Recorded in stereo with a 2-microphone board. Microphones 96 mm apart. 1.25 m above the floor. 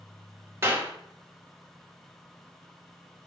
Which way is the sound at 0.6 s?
30° right (ahead or behind).